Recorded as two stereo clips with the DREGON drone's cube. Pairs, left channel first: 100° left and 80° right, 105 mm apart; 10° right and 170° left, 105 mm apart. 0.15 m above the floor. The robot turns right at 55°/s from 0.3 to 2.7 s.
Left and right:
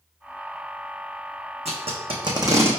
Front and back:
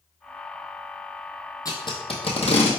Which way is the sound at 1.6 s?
70° right.